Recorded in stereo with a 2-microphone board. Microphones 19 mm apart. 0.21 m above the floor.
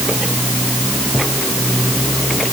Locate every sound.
Only background noise.